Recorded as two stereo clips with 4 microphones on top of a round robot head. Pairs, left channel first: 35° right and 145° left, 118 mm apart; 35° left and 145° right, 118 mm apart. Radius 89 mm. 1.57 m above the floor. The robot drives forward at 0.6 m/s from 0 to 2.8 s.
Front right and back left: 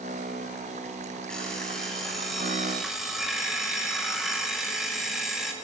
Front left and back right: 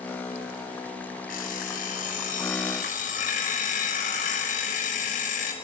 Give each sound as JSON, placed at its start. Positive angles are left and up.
{"t": 1.3, "sound": "an alarm clock", "azimuth_deg": 50, "distance_m": 5.5}